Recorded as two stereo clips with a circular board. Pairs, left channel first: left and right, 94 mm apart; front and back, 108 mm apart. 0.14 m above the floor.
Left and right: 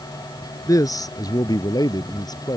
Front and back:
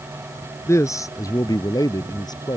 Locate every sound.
0.7 s a man speaking: 55° left; by 2.6 s 45° left